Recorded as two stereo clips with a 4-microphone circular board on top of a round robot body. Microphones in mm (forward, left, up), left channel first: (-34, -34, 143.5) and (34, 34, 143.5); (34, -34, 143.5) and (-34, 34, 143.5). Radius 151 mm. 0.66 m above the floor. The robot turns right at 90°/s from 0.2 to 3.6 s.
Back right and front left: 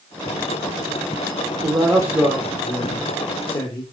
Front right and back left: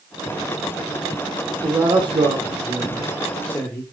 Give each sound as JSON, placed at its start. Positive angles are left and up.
{"t": 1.6, "sound": "a man speaking", "azimuth_deg": 70, "distance_m": 1.6}